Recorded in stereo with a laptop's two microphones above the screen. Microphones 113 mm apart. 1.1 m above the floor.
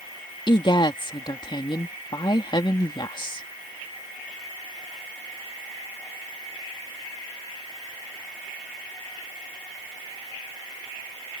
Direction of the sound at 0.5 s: 45° left (ahead or behind).